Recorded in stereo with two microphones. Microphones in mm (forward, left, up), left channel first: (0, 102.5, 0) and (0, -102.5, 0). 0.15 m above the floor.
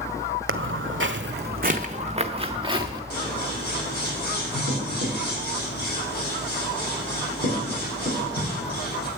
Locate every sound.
0.5 s footsteps: 80° right, 0.6 m; by 3.0 s 20° right (ahead or behind), 1.2 m
3.1 s scissors: 50° left (ahead or behind), 5 m